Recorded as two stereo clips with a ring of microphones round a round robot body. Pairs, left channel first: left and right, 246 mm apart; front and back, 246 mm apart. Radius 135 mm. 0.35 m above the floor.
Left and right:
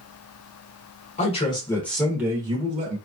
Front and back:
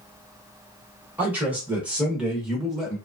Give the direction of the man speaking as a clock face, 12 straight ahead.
9 o'clock.